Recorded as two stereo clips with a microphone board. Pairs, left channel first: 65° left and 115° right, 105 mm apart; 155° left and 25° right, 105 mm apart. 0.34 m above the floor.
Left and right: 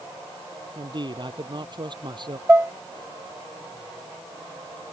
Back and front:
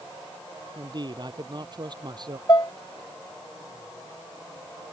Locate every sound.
0.8 s a man speaking: 70° right
2.5 s dishes clattering: 175° right